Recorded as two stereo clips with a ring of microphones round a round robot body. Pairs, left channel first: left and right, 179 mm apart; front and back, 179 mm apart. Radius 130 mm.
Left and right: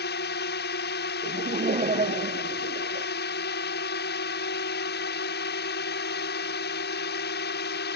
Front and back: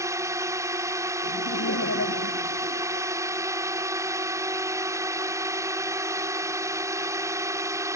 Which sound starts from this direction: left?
A drone, at 0.0 s.